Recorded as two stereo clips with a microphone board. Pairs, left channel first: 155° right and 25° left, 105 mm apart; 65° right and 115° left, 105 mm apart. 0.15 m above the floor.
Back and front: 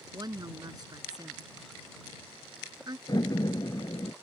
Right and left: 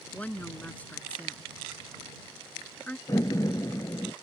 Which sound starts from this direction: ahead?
A woman speaking, at 0.1 s.